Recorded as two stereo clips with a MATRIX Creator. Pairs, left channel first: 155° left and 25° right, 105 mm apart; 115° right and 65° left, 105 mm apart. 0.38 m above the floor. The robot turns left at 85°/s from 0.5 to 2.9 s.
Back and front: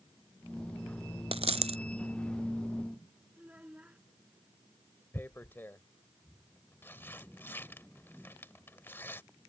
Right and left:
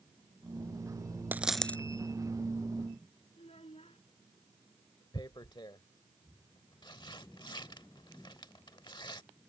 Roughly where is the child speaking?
Right.